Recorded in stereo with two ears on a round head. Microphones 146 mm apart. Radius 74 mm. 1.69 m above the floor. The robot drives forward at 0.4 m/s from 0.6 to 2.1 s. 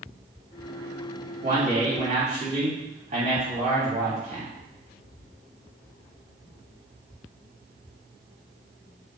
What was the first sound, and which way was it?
A man speaking, 55° right (ahead or behind).